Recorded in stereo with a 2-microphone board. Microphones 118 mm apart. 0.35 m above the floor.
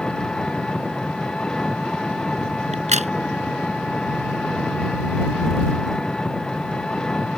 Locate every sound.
0.0 s an engine running: 5° left (ahead or behind)
2.7 s a crack: 75° right (ahead or behind)